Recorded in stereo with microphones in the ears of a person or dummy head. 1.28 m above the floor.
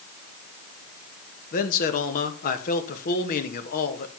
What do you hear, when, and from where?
1.5 s a man speaking: 50° left (ahead or behind), 1.9 m